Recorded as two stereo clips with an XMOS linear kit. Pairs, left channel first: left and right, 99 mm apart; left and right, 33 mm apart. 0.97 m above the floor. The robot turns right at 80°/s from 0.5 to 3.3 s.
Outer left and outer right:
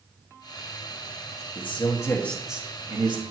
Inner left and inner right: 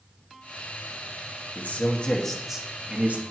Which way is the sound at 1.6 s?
110° left.